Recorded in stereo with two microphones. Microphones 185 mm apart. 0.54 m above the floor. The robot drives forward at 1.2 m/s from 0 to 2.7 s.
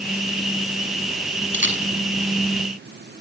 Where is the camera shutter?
80° right, 5.5 m; by 1.8 s 75° right (ahead or behind), 6 m.